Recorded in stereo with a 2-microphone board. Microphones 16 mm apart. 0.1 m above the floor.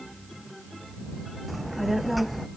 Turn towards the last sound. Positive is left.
turn(degrees=-5)  # may be behind; listen again after turning